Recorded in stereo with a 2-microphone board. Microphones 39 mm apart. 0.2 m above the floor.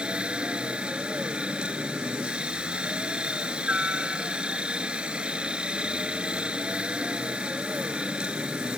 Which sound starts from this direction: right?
A helicopter, at 0.0 s.